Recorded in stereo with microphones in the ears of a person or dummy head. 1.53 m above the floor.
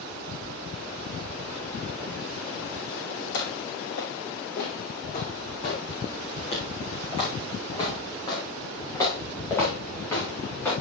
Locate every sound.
3.3 s footsteps: 65° left (ahead or behind), 4.5 m; by 10.7 s 15° left (ahead or behind), 6.5 m